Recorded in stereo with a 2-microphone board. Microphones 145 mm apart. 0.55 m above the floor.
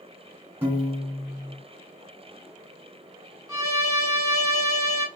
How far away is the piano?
About 2 m.